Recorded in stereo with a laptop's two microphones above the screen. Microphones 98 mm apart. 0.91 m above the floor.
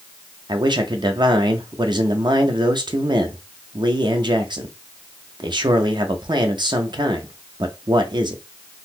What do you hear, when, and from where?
0.5 s a man speaking: 50° right (ahead or behind), 0.7 m